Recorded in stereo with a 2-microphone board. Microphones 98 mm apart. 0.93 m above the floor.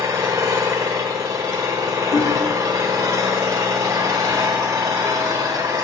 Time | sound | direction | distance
0.0 | an engine running | 35° right (ahead or behind) | 1.5 m
2.1 | hammering | 40° left (ahead or behind) | 0.8 m